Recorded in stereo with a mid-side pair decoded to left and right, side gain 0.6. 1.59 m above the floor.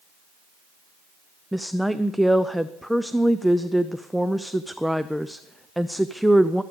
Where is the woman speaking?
Straight ahead, 0.5 m.